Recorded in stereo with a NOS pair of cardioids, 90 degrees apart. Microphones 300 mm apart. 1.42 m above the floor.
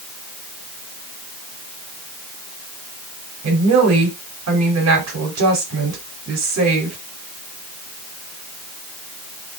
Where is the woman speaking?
60° right, 4 m.